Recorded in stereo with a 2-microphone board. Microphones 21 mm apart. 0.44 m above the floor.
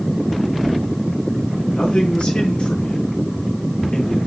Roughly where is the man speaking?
Left.